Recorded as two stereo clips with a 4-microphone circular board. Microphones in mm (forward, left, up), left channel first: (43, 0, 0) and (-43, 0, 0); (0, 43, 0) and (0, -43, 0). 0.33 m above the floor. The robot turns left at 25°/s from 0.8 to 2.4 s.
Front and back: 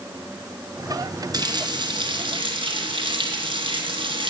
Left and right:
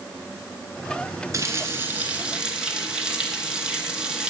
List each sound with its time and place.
1.3 s a running tap: 145° right, 2.5 m; by 4.3 s 170° right, 2.5 m